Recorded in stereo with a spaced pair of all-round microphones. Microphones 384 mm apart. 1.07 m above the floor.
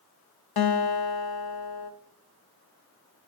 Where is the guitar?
70° left (ahead or behind), 0.6 m.